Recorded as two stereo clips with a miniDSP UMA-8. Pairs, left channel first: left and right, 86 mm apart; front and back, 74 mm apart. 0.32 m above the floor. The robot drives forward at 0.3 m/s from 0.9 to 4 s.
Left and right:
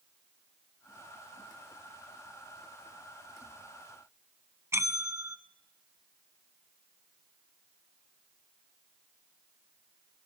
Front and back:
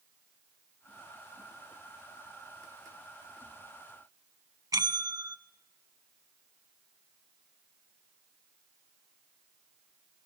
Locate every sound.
4.7 s a bell: 150° right, 0.7 m